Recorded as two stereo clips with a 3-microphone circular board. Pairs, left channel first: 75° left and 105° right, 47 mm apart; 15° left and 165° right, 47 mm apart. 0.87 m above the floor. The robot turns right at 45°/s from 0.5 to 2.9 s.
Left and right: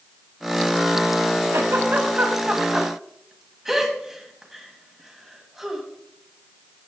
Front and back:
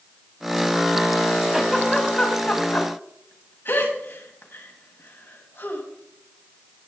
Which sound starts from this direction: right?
A giggle, at 1.5 s.